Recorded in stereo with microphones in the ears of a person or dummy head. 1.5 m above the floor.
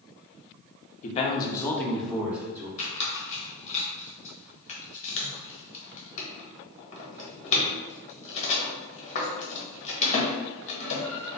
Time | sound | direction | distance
1.0 | a man speaking | 40° left (ahead or behind) | 0.7 m
2.8 | a squeak | 40° left (ahead or behind) | 1.0 m